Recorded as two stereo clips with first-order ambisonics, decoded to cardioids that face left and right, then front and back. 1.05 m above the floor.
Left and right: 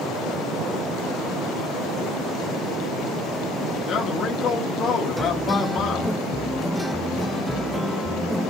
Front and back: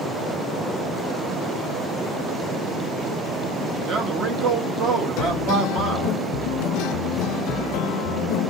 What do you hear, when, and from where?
3.9 s a man speaking: 135° left, 0.8 m